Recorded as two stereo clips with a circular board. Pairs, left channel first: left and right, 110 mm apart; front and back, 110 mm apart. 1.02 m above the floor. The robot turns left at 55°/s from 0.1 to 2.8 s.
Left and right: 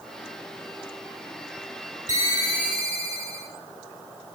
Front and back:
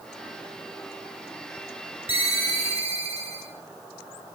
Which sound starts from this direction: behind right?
A ringtone, at 2.1 s.